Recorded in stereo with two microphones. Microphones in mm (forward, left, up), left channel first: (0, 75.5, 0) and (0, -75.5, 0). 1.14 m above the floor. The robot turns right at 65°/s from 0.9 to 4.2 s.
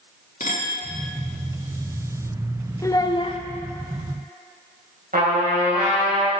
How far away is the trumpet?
About 3 m.